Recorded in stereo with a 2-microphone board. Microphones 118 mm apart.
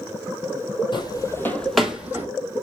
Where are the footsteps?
40° left (ahead or behind), 1.1 m; by 2.3 s 20° right (ahead or behind), 1.4 m.